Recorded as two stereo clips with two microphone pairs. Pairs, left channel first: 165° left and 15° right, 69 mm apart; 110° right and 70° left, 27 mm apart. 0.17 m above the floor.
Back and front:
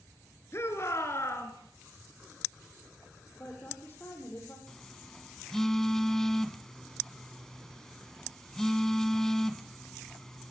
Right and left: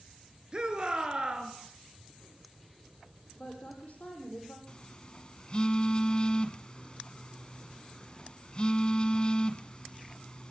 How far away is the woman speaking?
About 7 m.